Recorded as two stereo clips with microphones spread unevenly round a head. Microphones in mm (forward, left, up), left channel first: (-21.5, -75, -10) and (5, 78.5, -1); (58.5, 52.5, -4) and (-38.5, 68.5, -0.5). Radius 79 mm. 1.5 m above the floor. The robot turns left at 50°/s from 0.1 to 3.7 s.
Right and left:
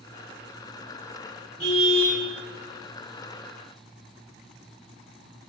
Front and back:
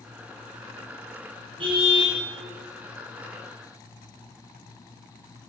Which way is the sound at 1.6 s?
150° left.